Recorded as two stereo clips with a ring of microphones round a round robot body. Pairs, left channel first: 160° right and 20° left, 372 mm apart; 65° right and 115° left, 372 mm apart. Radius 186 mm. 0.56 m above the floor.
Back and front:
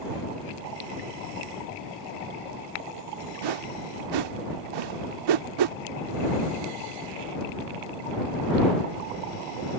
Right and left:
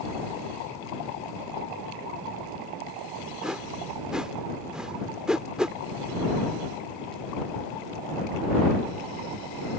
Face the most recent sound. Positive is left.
turn(degrees=25)